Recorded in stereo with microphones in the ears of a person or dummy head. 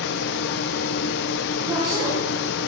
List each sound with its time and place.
0.0 s a fan: 60° left (ahead or behind), 0.9 m
1.6 s a woman speaking: 30° right (ahead or behind), 7.5 m